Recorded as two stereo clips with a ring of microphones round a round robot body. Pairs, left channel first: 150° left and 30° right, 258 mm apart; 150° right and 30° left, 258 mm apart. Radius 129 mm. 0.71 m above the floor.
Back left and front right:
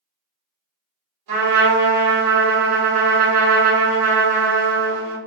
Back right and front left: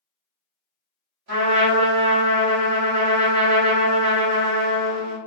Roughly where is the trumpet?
Ahead.